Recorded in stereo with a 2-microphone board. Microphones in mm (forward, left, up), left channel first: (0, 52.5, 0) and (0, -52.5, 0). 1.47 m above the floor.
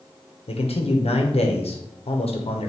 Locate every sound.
0.5 s a man speaking: 75° left (ahead or behind), 0.8 m